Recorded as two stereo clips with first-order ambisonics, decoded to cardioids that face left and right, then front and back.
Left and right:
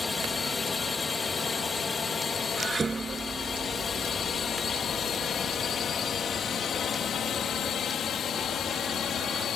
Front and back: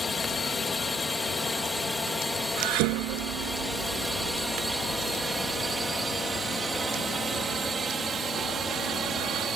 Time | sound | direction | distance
0.0 | a drone | 35° left | ?
2.6 | dishes clattering | 165° right | ?